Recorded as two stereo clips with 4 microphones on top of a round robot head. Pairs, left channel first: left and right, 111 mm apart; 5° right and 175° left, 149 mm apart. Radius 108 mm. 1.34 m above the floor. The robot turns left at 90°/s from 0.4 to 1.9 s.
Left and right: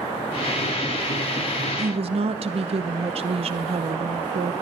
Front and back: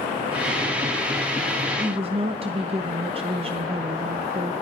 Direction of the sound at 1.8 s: 110° right.